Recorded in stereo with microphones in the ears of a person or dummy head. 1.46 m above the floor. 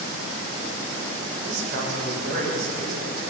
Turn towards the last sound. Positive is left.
turn(degrees=-60)  # may be behind; listen again after turning